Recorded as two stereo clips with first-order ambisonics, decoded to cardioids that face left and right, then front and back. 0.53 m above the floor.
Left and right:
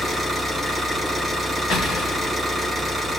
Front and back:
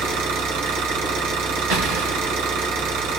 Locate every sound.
0.0 s an engine running: 170° right, 1.4 m
1.6 s a door slam: 155° left, 1.6 m